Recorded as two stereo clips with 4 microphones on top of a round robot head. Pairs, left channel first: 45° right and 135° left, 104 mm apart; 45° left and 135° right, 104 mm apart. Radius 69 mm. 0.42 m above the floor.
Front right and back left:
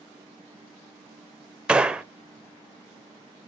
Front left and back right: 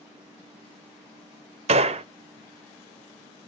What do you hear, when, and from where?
1.7 s a gunshot: 145° right, 0.8 m